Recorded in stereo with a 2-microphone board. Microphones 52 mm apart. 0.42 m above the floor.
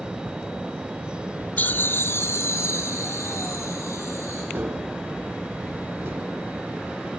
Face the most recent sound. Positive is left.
turn(degrees=-50)  # may be behind; listen again after turning